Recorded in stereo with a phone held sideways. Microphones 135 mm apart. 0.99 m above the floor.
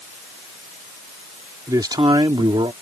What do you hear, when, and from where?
1.7 s a man speaking: 25° right (ahead or behind); by 2.7 s 40° right (ahead or behind)